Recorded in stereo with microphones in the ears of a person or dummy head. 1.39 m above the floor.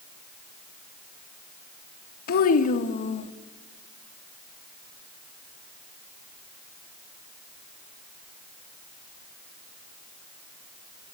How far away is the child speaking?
About 1.5 m.